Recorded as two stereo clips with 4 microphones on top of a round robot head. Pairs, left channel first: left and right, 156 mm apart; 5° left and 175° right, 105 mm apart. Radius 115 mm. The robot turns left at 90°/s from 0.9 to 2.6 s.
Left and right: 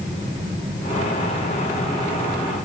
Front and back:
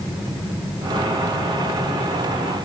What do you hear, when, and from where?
Only background noise.